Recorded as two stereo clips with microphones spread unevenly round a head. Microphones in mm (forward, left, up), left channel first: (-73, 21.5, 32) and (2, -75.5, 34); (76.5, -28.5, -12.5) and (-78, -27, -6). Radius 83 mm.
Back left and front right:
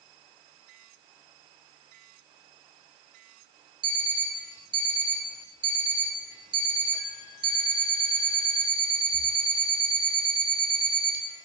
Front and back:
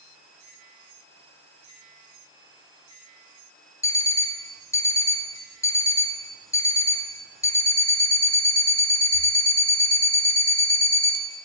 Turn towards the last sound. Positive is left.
turn(degrees=-65)